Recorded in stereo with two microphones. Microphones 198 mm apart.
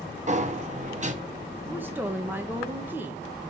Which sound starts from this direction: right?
A sliding door, at 0.3 s.